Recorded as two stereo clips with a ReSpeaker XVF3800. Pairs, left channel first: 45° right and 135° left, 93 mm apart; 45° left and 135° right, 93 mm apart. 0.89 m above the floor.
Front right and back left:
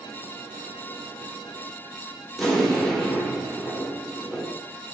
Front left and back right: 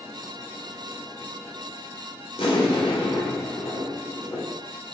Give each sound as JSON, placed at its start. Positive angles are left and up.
{"t": 2.4, "sound": "an explosion", "azimuth_deg": 40, "distance_m": 0.9}